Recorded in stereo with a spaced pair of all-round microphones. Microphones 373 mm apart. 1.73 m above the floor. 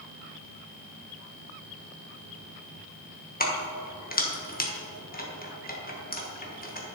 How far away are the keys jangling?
About 1.2 m.